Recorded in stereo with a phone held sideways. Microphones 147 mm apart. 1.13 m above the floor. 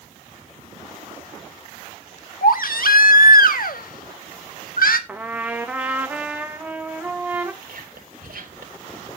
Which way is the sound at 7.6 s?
85° right.